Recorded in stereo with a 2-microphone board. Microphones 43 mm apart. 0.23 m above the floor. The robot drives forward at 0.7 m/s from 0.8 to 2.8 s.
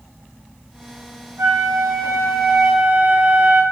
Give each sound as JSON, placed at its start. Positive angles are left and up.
{"t": 1.4, "sound": "a flute", "side_deg": -70, "distance_m": 3.5}